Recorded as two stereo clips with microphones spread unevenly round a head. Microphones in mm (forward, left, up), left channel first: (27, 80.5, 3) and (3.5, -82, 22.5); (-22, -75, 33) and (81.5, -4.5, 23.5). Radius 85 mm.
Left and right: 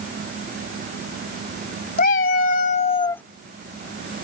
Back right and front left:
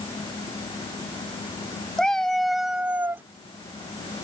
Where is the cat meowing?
130° left; by 3.2 s 15° right.